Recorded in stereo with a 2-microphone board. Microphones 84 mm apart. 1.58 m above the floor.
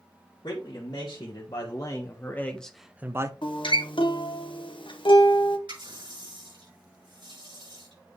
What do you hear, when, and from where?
0.4 s a man speaking: 60° left (ahead or behind), 1.9 m; by 3.3 s 35° right (ahead or behind), 0.7 m
3.4 s a guitar: 80° left, 1.0 m
5.7 s a running tap: 75° right (ahead or behind), 5 m